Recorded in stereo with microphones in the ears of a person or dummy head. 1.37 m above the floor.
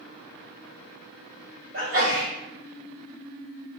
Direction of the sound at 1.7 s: 65° right (ahead or behind).